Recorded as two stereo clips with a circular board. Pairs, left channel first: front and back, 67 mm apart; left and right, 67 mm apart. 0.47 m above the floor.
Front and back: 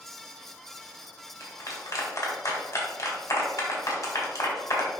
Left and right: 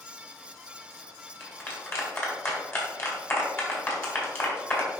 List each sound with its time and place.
1.4 s a clap: 40° left, 2.5 m